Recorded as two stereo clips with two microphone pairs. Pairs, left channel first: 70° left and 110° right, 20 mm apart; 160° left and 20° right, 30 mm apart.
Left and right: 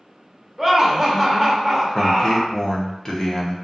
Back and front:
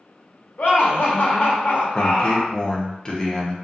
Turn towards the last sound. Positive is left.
turn(degrees=105)